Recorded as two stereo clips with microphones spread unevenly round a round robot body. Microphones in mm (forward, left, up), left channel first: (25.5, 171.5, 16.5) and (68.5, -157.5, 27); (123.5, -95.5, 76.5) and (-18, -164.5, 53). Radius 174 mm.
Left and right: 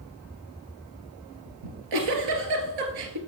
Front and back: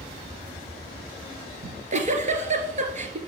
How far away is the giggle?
About 2.5 m.